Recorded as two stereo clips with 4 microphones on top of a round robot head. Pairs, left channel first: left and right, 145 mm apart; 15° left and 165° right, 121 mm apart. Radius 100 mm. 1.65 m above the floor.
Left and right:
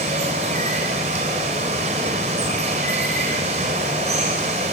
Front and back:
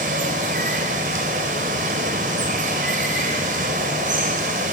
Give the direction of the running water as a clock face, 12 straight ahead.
5 o'clock.